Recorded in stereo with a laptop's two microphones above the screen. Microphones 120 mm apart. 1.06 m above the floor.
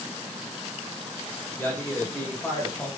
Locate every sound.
1.6 s a man speaking: 15° left (ahead or behind), 4.5 m; by 2.9 s 20° left (ahead or behind), 5.5 m